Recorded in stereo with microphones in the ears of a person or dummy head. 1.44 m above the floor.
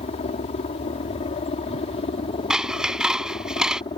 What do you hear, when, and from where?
0.0 s a helicopter: 30° left (ahead or behind); by 4.0 s 25° left (ahead or behind)
2.5 s scissors: centre (ahead or behind)